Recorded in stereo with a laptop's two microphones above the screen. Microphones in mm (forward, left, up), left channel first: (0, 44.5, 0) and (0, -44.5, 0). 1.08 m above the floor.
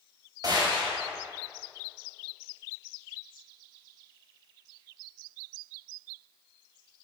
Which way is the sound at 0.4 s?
50° right (ahead or behind).